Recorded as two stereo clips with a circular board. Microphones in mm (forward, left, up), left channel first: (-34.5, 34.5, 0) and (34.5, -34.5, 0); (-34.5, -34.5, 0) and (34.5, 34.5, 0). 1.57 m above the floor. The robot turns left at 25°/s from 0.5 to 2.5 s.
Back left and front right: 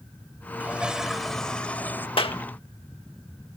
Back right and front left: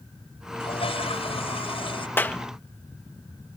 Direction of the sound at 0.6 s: 120° right.